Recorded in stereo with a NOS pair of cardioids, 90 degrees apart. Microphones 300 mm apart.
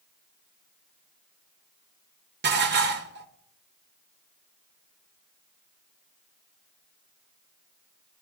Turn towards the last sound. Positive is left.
turn(degrees=-35)